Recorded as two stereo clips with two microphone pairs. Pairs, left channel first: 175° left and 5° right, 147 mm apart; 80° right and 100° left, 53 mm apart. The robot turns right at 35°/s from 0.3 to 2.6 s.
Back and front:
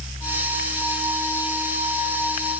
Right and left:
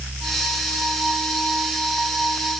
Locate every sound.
Only background noise.